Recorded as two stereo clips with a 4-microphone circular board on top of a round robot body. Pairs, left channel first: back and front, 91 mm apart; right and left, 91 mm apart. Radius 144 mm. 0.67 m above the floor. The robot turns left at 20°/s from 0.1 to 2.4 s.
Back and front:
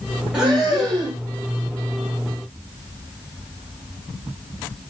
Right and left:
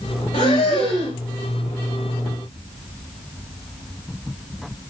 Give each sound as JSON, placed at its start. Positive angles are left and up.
{"t": 0.3, "sound": "breathing", "azimuth_deg": -80, "distance_m": 0.5}